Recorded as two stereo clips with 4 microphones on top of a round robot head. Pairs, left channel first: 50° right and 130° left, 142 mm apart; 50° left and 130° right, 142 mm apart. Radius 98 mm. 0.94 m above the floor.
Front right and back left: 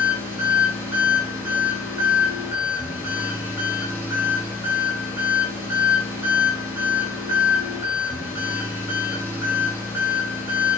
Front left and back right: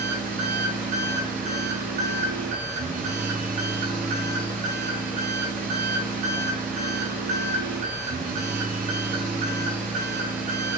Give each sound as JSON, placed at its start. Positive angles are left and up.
{"t": 0.0, "sound": "an engine running", "azimuth_deg": -155, "distance_m": 9.0}